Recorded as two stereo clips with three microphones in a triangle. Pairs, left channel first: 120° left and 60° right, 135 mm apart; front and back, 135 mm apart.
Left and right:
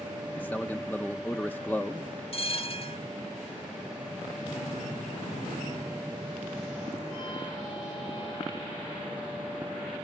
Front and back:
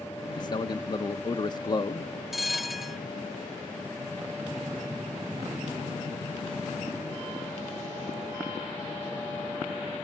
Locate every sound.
0.4 s a man speaking: 45° left, 0.7 m
2.3 s a bell: 90° left, 0.6 m